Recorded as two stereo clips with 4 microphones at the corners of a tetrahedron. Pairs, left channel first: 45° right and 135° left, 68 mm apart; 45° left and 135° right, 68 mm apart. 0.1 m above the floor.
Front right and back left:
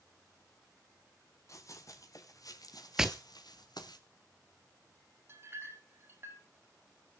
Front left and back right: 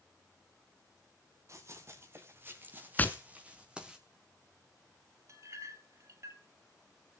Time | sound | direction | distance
1.5 | running footsteps | 90° right | 4 m
3.0 | tapping | 65° left | 1.1 m
5.3 | a clink | 175° right | 2 m